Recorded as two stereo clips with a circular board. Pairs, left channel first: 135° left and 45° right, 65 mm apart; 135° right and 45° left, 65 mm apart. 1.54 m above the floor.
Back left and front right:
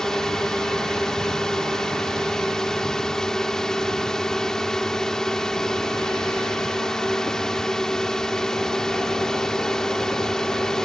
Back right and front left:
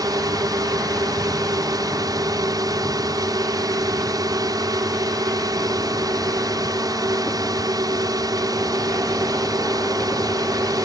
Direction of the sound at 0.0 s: 55° left.